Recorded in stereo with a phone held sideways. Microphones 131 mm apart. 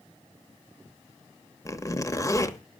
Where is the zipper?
25° left (ahead or behind), 1.0 m.